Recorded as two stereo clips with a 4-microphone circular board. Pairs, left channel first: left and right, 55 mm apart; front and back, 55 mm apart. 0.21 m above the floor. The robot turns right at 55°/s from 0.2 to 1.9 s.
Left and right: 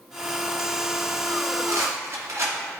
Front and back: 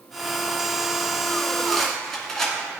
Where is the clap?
No clap in this recording.